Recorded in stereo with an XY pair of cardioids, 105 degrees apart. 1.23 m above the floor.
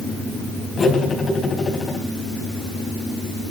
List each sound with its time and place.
0.8 s cutlery clinking: 40° left, 5 m